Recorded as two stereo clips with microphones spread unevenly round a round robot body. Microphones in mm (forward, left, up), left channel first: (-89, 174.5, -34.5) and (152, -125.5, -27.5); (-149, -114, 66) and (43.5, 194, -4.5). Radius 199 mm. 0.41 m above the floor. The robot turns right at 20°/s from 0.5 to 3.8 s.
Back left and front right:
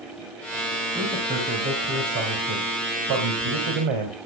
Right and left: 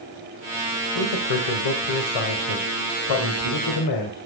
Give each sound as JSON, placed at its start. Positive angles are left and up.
{"t": 0.9, "sound": "a man speaking", "azimuth_deg": -135, "distance_m": 1.9}